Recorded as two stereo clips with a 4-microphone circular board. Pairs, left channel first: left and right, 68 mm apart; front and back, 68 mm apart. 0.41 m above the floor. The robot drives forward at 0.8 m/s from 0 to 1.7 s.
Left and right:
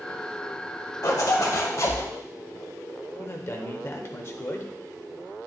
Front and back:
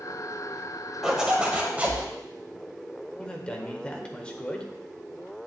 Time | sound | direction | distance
1.0 | a zipper | 95° left | 1.7 m
3.2 | a man speaking | 65° left | 1.0 m